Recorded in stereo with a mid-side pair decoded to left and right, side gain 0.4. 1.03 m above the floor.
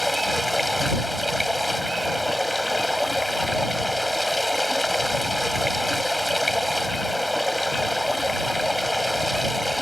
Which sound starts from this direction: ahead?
Running water, at 0.0 s.